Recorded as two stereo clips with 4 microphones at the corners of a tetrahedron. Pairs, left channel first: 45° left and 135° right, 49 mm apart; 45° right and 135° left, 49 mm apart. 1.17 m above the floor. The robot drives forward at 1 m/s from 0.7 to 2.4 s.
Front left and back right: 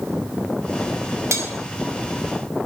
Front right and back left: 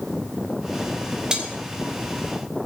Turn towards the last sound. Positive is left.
turn(degrees=-165)